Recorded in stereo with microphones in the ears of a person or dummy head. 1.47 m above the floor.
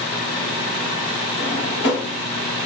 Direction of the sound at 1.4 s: 25° left (ahead or behind).